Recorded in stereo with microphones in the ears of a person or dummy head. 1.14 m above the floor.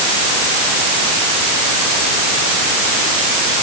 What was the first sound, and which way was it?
Only background noise.